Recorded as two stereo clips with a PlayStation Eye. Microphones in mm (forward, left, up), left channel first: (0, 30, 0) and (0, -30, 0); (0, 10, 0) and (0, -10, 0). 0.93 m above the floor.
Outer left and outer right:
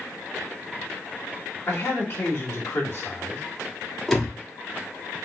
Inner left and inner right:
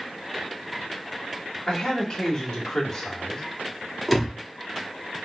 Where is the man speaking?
40° left (ahead or behind), 1.8 m.